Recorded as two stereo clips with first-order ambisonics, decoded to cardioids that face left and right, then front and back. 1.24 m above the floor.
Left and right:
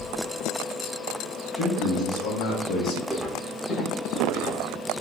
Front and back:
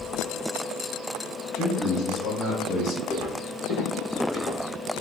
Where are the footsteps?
5° right, 1.3 m; by 4.6 s 45° left, 3 m.